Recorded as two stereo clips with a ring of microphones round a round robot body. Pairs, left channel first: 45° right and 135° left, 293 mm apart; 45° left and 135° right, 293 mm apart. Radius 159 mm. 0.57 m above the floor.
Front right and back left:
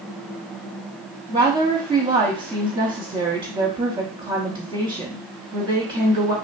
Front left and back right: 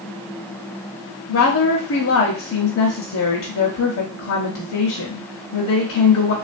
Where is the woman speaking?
65° left, 0.8 m.